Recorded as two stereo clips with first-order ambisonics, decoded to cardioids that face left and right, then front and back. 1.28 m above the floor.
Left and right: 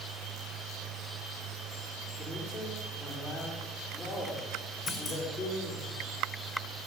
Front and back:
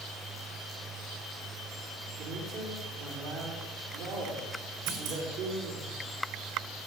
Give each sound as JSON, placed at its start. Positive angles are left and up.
{"t": 2.2, "sound": "a man speaking", "azimuth_deg": 180, "distance_m": 4.0}
{"t": 4.9, "sound": "a clunk", "azimuth_deg": 175, "distance_m": 3.0}